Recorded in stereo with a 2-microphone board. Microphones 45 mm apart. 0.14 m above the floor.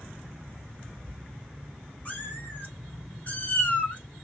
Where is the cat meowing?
40° left (ahead or behind), 1.8 m; by 4.0 s 30° left (ahead or behind), 0.7 m.